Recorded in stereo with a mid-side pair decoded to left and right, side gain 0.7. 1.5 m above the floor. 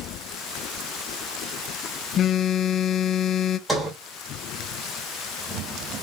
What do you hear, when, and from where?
2.2 s a phone buzzing: 40° left, 0.6 m
3.7 s a sliding door: 15° right, 3 m